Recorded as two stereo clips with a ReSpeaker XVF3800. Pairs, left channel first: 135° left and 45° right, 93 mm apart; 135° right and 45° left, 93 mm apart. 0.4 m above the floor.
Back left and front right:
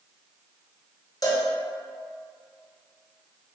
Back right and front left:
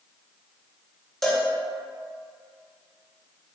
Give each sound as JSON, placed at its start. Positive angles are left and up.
{"t": 1.2, "sound": "a cowbell", "azimuth_deg": 140, "distance_m": 0.6}